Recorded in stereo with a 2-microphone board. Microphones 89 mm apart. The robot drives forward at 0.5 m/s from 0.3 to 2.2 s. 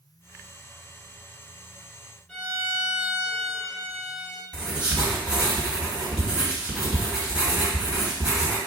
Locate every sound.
2.3 s a violin: 10° left (ahead or behind), 1.8 m
4.5 s writing: 10° right (ahead or behind), 1.9 m